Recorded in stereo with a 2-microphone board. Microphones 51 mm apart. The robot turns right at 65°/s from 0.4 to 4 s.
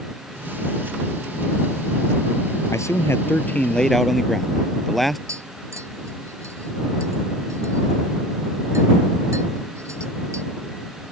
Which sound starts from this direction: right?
Tapping, at 5.3 s.